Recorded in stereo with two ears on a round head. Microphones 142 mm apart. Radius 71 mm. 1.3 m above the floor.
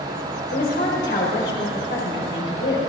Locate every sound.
0.5 s a woman speaking: 70° left (ahead or behind), 4.5 m